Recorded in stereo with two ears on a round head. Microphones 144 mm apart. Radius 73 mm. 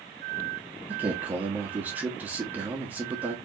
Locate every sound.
0.9 s a man speaking: 10° right (ahead or behind), 1.2 m